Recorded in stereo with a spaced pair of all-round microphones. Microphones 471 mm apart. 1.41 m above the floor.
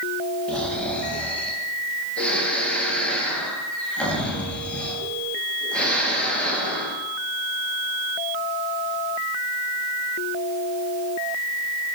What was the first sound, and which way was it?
Snoring, centre (ahead or behind).